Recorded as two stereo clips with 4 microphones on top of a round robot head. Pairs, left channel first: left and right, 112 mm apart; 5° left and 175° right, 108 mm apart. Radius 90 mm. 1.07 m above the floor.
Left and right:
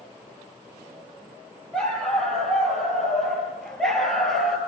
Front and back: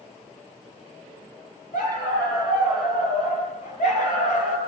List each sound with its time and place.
1.7 s a dog barking: 5° left, 8.5 m